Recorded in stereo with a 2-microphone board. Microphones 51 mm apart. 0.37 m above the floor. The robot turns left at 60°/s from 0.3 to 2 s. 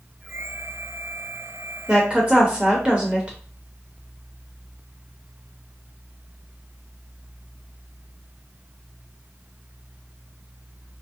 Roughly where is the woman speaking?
Centre.